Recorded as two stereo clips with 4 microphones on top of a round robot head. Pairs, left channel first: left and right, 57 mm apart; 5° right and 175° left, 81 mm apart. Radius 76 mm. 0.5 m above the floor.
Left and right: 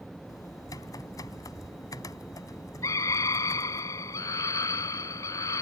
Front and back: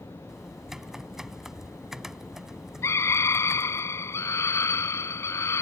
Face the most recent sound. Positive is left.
turn(degrees=50)